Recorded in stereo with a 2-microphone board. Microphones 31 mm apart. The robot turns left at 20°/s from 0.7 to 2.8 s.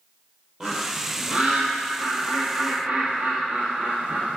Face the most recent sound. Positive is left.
turn(degrees=-45)  # may be behind; listen again after turning